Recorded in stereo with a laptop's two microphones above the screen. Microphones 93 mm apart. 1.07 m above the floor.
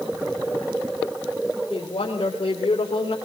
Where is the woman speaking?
90° left, 3.5 m; by 3.1 s 80° left, 2.5 m.